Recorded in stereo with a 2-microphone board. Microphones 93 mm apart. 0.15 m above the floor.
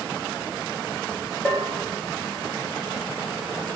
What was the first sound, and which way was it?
A bell, 20° right (ahead or behind).